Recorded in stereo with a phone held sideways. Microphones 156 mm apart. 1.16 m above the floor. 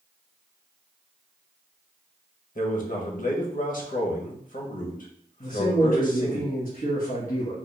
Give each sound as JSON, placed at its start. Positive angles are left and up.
{"t": 2.5, "sound": "a man speaking", "side_deg": 60, "distance_m": 1.0}
{"t": 5.4, "sound": "a man speaking", "side_deg": 60, "distance_m": 1.6}